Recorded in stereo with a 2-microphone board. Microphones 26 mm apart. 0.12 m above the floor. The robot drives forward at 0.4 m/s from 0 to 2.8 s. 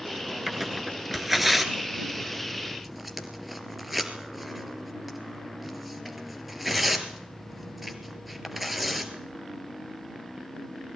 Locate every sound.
0.5 s tearing paper: 5° right (ahead or behind), 1.8 m